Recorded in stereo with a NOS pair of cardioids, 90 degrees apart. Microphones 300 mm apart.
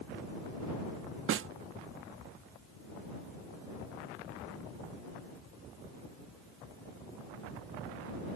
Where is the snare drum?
45° right.